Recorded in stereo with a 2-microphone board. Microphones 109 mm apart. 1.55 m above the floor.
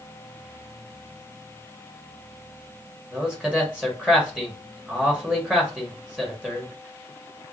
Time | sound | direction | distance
3.1 | a man speaking | 10° right (ahead or behind) | 1.3 m